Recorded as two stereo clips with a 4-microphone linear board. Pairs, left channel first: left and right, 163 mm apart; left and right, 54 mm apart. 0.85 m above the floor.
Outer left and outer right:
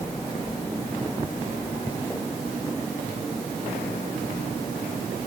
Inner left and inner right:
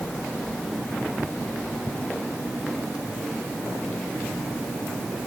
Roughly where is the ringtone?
I don't hear a ringtone.